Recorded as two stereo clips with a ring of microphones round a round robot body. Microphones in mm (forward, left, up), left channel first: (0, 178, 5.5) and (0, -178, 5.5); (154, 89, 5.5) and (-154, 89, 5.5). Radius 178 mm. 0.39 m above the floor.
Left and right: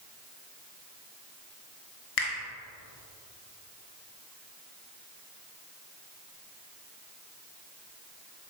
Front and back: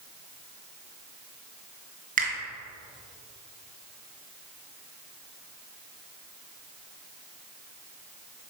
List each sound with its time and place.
2.2 s a finger snap: 115° left, 2 m